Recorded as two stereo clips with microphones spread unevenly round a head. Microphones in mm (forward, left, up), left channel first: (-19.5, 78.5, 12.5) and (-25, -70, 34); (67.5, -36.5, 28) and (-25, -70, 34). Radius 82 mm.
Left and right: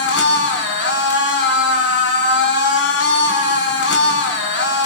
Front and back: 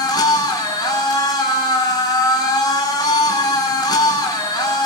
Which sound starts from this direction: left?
A machine running, at 0.0 s.